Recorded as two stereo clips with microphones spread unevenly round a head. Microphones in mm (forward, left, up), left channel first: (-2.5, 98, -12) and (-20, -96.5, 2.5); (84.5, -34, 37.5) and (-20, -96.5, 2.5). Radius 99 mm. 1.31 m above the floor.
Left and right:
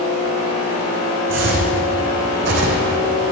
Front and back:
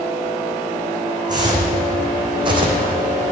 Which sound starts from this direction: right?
Footsteps, at 1.3 s.